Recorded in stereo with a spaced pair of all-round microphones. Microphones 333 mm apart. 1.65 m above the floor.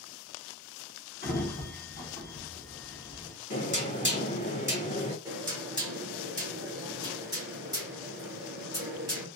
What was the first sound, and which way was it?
A sliding door, 30° left (ahead or behind).